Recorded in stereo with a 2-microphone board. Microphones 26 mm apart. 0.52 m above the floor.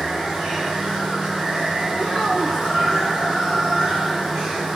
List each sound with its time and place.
0.0 s running water: 15° right (ahead or behind), 3 m
1.9 s a child speaking: 5° left (ahead or behind), 1.0 m